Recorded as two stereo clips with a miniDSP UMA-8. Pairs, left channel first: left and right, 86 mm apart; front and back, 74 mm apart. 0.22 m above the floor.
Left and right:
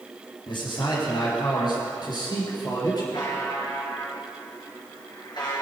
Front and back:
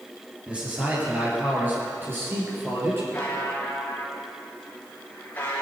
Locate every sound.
0.5 s a man speaking: 105° left, 4.5 m; by 3.0 s 125° left, 5 m
3.1 s a buzzer: 65° left, 4 m